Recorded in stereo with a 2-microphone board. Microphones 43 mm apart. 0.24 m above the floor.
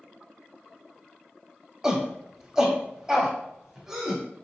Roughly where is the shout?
Centre.